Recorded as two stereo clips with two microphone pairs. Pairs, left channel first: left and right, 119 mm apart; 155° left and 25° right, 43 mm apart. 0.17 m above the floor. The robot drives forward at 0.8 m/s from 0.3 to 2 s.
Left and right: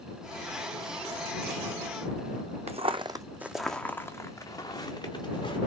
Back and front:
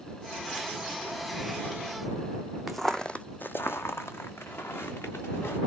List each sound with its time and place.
2.7 s footsteps: 115° right, 0.6 m; by 5.6 s 135° left, 1.6 m